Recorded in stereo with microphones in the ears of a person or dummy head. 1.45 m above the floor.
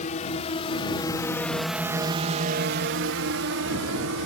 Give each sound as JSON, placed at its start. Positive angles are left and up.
{"t": 0.0, "sound": "a drone", "side_deg": 35}